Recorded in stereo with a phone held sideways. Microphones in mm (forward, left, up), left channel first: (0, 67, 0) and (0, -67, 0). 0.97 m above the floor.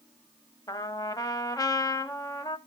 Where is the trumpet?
30° left (ahead or behind), 0.8 m.